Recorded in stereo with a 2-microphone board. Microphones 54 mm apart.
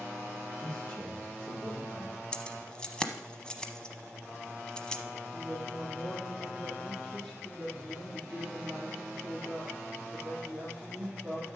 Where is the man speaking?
5° left (ahead or behind), 4 m; by 2.2 s 5° right (ahead or behind), 3 m.